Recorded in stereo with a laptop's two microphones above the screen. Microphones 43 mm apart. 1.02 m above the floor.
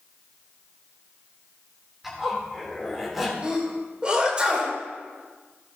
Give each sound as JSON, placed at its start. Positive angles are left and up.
{"t": 2.0, "sound": "a zipper", "side_deg": -5, "distance_m": 3.5}
{"t": 3.4, "sound": "a sneeze", "side_deg": -20, "distance_m": 4.0}